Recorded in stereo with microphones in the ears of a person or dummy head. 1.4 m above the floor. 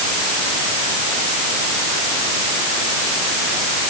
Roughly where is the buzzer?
No buzzer in this recording.